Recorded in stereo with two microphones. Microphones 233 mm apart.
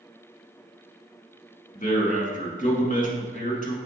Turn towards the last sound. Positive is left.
turn(degrees=35)  # may be behind; listen again after turning